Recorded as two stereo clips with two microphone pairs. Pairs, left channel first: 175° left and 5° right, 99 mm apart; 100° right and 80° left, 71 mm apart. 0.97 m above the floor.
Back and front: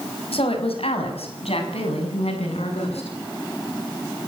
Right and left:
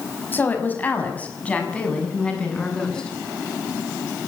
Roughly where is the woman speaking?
Behind.